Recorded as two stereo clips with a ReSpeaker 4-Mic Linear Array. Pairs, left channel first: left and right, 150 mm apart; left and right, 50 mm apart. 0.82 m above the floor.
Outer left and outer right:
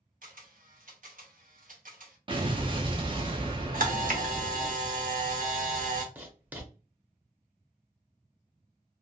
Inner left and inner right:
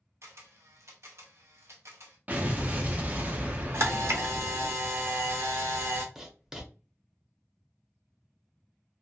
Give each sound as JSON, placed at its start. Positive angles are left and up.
{"t": 0.2, "sound": "a camera shutter", "side_deg": -60, "distance_m": 0.7}
{"t": 2.3, "sound": "an explosion", "side_deg": -35, "distance_m": 0.6}
{"t": 3.7, "sound": "a camera shutter", "side_deg": -65, "distance_m": 0.7}
{"t": 6.2, "sound": "writing", "side_deg": -10, "distance_m": 0.7}